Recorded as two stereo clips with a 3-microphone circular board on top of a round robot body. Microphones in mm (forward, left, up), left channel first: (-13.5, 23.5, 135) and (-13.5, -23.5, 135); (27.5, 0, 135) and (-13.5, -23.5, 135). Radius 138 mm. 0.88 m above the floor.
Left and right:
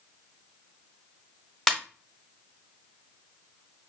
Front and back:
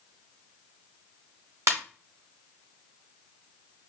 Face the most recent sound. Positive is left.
turn(degrees=175)